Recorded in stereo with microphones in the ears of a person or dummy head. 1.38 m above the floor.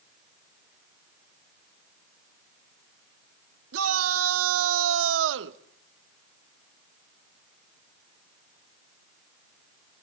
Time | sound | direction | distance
3.7 | a shout | 85° right | 2.5 m